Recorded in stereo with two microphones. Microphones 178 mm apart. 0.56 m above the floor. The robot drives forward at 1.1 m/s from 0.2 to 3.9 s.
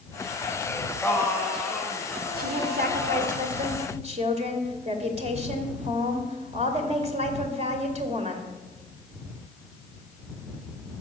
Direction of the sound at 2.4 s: 55° right (ahead or behind).